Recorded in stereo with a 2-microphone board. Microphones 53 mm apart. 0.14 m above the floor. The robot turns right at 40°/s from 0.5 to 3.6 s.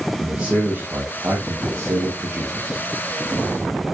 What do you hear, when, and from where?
0.2 s a man speaking: 155° right, 5 m; by 2.8 s 65° right, 5 m